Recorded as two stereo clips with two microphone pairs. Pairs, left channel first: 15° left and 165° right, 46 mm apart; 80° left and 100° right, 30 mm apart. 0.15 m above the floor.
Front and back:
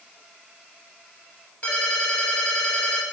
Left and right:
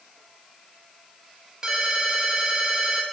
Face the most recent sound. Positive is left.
turn(degrees=-35)